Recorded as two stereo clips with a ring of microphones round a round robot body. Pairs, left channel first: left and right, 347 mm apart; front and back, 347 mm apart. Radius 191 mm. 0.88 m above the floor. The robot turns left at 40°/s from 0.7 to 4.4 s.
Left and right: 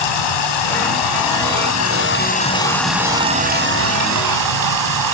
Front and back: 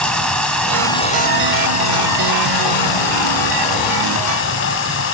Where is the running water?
85° left, 7 m; by 5.2 s 60° right, 7 m.